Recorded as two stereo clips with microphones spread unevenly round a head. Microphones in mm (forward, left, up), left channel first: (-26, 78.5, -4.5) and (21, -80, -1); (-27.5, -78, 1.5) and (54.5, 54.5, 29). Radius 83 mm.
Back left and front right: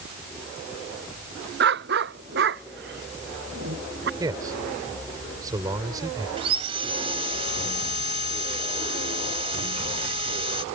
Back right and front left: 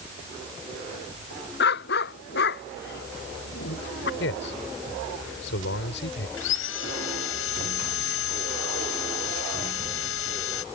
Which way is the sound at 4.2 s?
145° right.